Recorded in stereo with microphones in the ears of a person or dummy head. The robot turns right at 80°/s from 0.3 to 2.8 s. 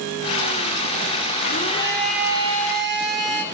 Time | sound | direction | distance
1.4 | a blender | 125° left | 3.5 m